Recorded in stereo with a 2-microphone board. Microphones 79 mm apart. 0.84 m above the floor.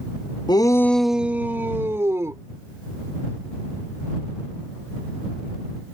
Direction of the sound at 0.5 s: 60° left (ahead or behind).